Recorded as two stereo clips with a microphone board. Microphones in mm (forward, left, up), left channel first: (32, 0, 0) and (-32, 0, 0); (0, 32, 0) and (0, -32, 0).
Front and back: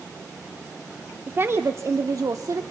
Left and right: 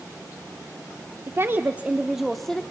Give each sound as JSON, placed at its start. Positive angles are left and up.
{"t": 1.3, "sound": "a woman speaking", "azimuth_deg": -125, "distance_m": 0.9}